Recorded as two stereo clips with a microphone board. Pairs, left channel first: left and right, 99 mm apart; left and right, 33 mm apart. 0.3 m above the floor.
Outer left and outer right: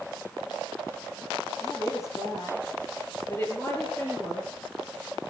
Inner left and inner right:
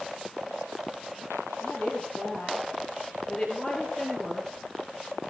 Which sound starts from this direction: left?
A woman speaking, at 1.6 s.